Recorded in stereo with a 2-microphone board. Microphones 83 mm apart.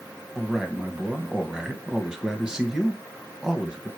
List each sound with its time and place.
0.3 s a man speaking: 10° right (ahead or behind), 1.5 m